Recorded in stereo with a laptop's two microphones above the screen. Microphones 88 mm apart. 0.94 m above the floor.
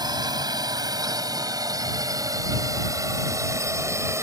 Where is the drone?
50° right (ahead or behind); by 4.2 s 30° right (ahead or behind).